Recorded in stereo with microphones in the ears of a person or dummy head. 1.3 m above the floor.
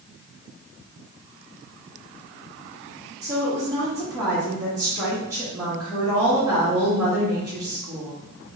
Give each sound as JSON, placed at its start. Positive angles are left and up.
{"t": 3.2, "sound": "a woman speaking", "side_deg": -10, "distance_m": 1.3}